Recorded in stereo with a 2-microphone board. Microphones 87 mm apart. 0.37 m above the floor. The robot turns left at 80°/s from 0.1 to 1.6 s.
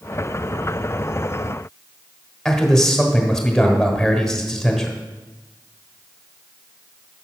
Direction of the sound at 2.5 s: 5° left (ahead or behind).